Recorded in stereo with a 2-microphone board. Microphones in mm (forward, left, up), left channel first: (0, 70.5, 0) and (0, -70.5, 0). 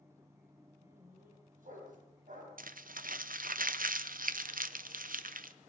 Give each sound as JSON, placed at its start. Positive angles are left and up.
{"t": 0.8, "sound": "a dog barking", "side_deg": -75, "distance_m": 3.5}
{"t": 2.6, "sound": "crumpling", "side_deg": -85, "distance_m": 0.6}